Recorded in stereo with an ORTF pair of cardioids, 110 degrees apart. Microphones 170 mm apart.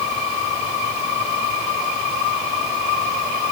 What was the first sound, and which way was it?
Only background noise.